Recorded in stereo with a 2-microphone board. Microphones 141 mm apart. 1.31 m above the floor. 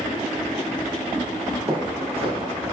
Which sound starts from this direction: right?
Footsteps, at 1.7 s.